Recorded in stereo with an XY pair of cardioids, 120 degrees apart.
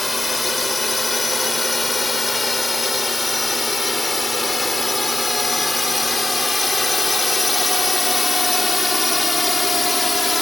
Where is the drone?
15° left.